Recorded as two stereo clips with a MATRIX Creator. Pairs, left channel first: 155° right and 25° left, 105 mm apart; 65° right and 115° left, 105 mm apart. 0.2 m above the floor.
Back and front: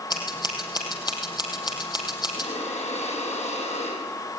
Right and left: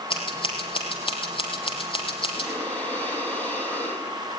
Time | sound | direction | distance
0.1 | scissors | 110° right | 4.5 m
2.4 | breathing | 145° right | 6 m